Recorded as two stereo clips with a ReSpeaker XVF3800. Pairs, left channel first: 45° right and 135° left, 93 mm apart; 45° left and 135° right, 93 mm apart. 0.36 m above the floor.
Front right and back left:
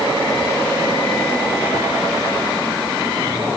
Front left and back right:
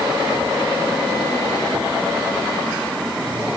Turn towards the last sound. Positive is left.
No sound to turn to.